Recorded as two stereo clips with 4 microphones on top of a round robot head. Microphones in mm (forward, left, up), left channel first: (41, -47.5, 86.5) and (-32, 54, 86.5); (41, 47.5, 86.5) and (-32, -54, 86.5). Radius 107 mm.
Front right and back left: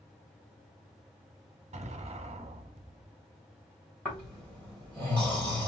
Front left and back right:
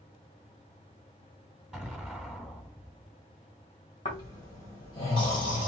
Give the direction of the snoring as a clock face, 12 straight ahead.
11 o'clock.